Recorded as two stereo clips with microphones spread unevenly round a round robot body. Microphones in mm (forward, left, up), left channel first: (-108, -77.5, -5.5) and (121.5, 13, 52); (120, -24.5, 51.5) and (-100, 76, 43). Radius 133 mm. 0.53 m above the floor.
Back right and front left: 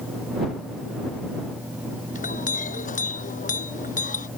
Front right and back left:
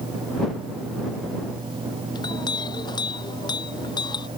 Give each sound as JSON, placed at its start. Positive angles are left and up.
{"t": 2.1, "sound": "a clink", "azimuth_deg": -100}